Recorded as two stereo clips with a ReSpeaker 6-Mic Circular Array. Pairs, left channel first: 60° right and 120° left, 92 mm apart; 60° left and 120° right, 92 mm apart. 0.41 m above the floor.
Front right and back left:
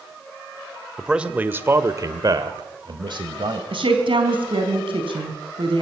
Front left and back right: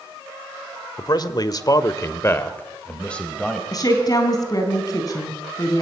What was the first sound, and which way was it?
A man speaking, 35° left.